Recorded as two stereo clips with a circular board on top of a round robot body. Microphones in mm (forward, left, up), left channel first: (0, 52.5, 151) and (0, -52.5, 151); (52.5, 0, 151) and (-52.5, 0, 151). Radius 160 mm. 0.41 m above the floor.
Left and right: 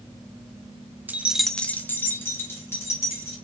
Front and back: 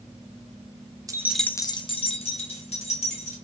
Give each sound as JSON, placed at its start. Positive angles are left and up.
{"t": 1.1, "sound": "keys jangling", "azimuth_deg": -155, "distance_m": 0.5}